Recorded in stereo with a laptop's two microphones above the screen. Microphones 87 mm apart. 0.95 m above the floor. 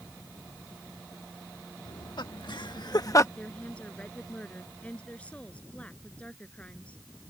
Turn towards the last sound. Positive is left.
turn(degrees=15)  # may be behind; listen again after turning